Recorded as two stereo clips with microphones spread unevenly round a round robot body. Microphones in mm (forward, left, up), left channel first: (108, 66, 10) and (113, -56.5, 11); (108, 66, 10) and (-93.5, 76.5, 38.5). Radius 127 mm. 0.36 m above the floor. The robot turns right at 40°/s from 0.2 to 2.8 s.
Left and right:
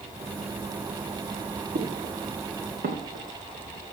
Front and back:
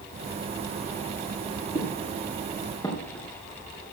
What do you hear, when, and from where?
1.8 s footsteps: 115° right, 4.5 m; by 3.9 s 95° right, 3.5 m